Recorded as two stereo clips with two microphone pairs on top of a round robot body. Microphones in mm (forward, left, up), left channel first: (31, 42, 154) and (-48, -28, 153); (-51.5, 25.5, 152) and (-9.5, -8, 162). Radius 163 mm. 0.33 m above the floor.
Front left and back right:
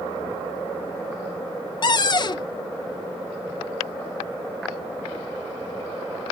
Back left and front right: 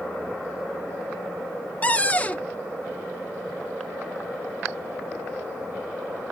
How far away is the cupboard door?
About 0.5 m.